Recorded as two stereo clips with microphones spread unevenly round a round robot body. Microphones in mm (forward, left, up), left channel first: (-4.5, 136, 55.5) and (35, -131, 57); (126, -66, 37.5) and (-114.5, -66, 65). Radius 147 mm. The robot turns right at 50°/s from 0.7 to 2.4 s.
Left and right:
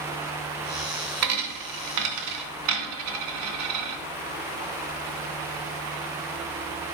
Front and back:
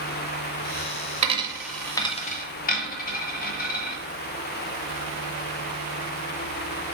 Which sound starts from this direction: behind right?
A dropped coin, at 1.2 s.